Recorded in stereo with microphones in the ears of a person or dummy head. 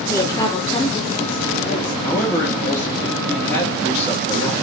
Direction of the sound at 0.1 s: 15° left (ahead or behind).